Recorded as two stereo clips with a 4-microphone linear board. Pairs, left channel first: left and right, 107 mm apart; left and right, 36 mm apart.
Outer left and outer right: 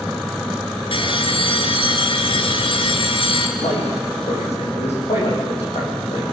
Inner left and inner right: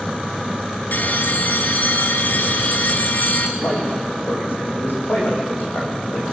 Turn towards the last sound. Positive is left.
turn(degrees=80)